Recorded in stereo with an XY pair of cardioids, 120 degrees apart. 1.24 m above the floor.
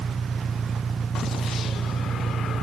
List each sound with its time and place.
0.0 s an engine running: 30° right